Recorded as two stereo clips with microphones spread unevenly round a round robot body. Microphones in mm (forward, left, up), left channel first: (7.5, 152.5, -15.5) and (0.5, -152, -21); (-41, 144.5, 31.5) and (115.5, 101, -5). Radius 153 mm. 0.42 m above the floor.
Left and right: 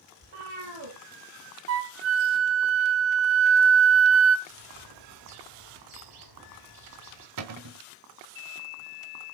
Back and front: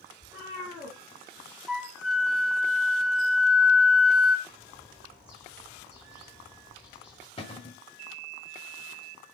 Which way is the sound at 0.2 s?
105° right.